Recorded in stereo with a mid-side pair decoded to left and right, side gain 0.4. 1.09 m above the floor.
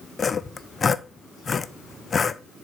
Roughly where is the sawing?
Ahead left.